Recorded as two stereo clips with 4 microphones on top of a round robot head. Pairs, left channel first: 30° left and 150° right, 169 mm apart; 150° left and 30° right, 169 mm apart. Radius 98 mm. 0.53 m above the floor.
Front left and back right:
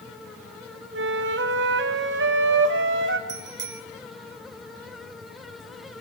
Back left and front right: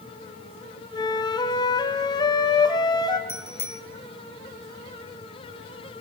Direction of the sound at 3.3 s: 135° right.